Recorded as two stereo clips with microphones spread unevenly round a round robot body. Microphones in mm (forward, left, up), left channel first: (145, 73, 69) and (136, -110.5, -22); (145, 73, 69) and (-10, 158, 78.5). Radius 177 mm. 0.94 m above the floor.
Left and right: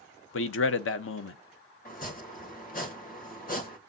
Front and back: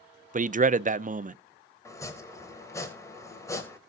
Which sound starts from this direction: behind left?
A man speaking, at 0.3 s.